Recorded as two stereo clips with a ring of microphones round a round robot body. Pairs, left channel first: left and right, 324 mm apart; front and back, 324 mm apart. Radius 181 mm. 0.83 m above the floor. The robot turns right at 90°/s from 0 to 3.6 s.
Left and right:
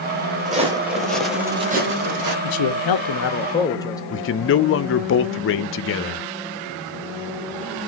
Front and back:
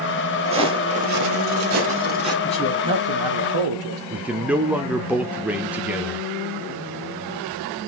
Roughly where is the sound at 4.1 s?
Left.